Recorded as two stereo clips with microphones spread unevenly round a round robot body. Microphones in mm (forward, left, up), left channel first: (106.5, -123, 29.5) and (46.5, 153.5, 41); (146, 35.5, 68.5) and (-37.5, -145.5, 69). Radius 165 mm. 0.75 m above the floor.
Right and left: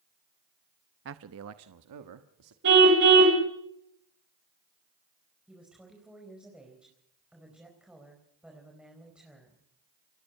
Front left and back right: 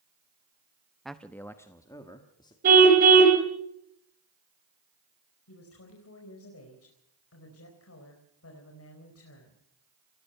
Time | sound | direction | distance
1.1 | a man speaking | 135° left | 0.6 m
2.6 | a car horn | 160° left | 2.5 m
5.5 | a woman speaking | 15° left | 4.5 m